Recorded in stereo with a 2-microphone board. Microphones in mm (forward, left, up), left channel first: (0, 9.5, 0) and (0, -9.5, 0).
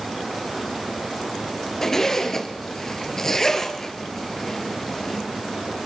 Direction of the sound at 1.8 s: 20° left (ahead or behind).